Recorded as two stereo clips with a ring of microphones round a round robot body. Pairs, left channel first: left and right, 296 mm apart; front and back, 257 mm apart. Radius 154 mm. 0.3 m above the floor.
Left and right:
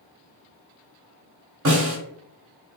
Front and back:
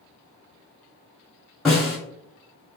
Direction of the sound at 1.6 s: 90° right.